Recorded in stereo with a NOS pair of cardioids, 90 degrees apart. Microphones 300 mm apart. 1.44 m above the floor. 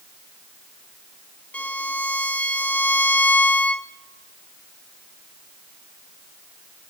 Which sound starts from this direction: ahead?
A violin, at 1.5 s.